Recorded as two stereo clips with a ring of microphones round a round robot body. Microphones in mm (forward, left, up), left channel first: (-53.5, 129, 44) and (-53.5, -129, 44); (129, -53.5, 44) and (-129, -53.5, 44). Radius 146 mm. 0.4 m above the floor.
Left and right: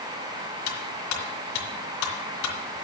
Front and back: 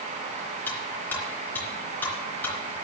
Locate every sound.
0.7 s cutlery clinking: 85° left, 3 m